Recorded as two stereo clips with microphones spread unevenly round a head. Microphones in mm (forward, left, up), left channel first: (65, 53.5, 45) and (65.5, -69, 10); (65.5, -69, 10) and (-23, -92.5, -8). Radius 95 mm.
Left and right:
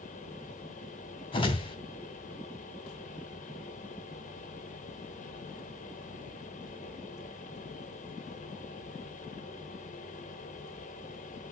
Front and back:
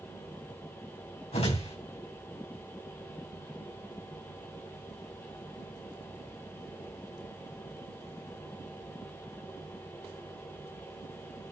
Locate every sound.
0.0 s a fan: 90° left, 1.4 m
1.3 s a whoosh: 50° left, 3 m